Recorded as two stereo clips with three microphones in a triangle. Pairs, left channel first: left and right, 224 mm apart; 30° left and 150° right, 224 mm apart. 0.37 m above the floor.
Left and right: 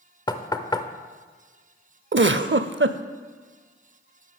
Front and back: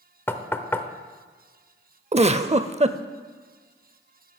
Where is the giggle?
90° right, 0.5 m.